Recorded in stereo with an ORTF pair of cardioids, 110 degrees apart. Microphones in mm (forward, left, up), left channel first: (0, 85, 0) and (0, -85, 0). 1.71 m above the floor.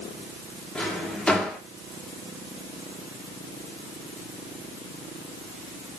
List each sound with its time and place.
0.8 s a drawer: 5° left, 2.5 m